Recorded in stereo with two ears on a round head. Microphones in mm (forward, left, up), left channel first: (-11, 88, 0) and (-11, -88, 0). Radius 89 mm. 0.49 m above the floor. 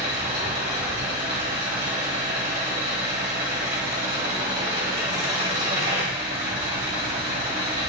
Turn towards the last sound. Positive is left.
turn(degrees=-30)  # may be behind; listen again after turning